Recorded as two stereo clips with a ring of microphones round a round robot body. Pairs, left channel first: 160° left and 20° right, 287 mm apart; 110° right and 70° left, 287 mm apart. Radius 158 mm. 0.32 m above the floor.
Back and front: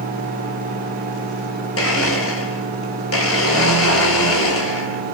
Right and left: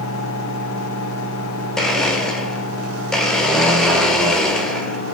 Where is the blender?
160° left, 1.5 m.